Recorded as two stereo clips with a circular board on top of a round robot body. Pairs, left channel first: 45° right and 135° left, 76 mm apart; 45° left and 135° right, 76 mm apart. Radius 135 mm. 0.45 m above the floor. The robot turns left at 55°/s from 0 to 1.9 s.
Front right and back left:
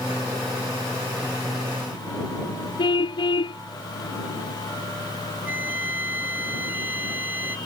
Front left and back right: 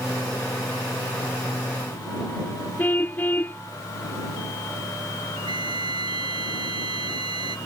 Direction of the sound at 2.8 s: 25° right.